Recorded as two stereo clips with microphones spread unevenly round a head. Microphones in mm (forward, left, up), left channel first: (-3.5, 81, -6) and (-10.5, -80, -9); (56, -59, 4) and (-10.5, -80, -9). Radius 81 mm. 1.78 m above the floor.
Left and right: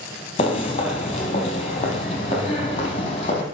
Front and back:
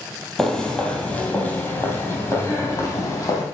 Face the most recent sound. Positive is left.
turn(degrees=40)